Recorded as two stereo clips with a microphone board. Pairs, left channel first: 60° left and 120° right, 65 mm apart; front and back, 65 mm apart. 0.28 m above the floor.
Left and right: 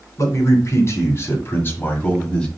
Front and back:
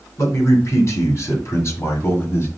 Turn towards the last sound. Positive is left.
turn(degrees=-10)